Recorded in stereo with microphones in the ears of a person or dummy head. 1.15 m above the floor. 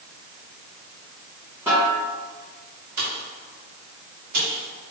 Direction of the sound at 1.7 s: 10° right (ahead or behind).